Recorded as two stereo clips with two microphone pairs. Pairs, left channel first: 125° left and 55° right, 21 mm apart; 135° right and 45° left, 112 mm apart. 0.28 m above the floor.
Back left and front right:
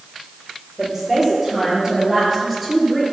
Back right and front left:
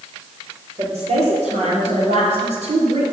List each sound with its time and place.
0.8 s a woman speaking: 30° left, 6 m; by 3.0 s 40° left, 4.5 m